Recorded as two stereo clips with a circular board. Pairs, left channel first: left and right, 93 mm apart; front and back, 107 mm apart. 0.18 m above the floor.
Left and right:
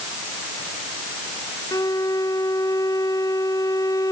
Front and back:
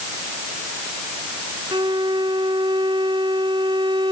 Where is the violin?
140° left.